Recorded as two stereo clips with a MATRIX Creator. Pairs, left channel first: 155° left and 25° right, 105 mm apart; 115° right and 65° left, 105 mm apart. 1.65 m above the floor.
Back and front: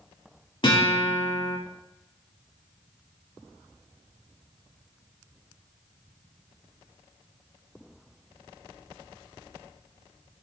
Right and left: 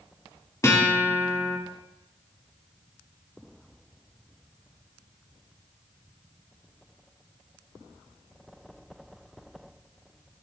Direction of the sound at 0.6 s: 170° right.